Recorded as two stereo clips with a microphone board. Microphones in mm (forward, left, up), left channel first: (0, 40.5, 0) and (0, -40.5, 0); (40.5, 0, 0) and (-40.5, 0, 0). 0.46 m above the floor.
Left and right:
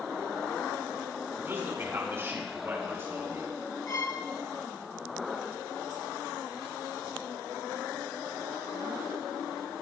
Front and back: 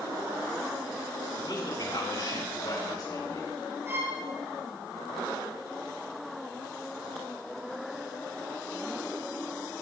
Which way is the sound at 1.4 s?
30° right.